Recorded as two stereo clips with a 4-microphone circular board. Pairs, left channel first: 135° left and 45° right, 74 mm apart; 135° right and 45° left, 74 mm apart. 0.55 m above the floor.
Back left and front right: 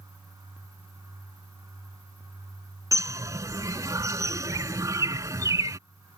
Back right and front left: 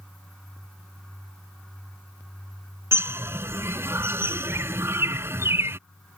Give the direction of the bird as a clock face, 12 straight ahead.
12 o'clock.